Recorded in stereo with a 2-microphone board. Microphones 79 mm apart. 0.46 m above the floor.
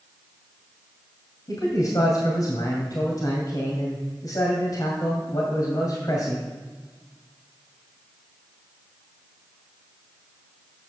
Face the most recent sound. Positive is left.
turn(degrees=55)  # may be behind; listen again after turning